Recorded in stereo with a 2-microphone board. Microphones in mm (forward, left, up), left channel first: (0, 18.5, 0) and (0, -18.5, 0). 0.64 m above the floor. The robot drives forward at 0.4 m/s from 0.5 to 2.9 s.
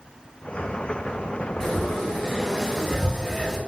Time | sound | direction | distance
1.6 | frying | 15° left (ahead or behind) | 2.5 m